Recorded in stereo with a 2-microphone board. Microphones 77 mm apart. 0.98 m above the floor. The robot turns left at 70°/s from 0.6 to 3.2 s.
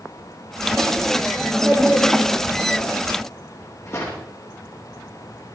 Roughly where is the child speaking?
Behind right.